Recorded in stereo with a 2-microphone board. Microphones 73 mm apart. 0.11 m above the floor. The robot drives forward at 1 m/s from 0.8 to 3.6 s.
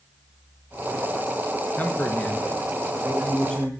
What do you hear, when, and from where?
1.8 s a man speaking: 25° left (ahead or behind), 1.5 m; by 3.7 s 15° left (ahead or behind), 2.5 m